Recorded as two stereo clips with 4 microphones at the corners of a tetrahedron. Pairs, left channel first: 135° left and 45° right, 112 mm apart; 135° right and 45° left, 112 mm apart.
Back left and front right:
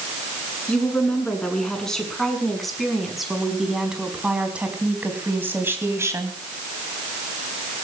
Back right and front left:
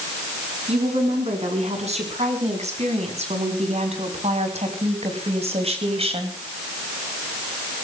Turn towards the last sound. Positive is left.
turn(degrees=20)